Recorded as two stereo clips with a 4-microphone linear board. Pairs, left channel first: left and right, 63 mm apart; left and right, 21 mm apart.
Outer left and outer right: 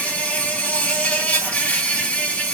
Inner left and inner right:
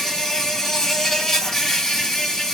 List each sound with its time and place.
0.0 s an insect: 25° left (ahead or behind), 1.5 m